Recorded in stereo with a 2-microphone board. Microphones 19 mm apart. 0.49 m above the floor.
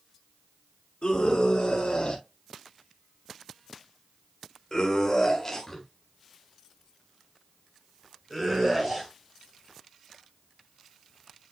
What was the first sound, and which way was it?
A scream, 55° left (ahead or behind).